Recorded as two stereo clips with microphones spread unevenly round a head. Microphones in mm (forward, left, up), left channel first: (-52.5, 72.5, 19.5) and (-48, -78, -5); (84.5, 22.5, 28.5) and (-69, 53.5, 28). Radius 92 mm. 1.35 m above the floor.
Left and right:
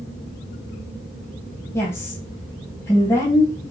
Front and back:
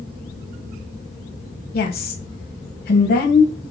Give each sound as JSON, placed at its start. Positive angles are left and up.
{"t": 1.7, "sound": "a woman speaking", "azimuth_deg": 15, "distance_m": 1.1}